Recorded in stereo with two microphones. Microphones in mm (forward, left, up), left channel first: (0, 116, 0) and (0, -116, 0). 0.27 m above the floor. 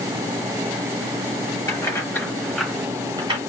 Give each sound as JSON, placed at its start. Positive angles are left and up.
{"t": 1.7, "sound": "keys jangling", "side_deg": 15, "distance_m": 3.0}